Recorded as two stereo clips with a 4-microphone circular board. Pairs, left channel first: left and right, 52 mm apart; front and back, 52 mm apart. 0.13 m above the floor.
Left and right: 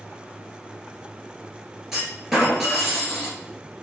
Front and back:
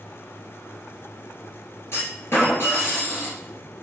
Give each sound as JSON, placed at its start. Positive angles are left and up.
{"t": 1.9, "sound": "a clunk", "azimuth_deg": -5, "distance_m": 2.0}